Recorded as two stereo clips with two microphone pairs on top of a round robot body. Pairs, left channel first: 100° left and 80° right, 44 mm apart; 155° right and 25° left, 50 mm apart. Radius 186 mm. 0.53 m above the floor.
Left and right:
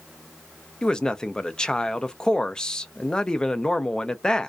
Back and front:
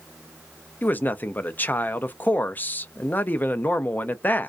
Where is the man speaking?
Straight behind, 0.6 m.